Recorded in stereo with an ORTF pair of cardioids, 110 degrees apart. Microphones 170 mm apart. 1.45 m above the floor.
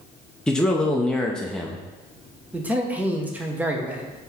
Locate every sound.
0.5 s a man speaking: 5° left, 0.5 m
2.5 s a man speaking: 10° right, 0.8 m